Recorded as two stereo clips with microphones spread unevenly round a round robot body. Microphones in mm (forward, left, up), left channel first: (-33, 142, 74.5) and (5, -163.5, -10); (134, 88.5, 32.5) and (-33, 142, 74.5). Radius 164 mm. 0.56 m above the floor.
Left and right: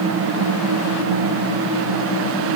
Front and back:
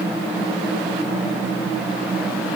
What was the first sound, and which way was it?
Only background noise.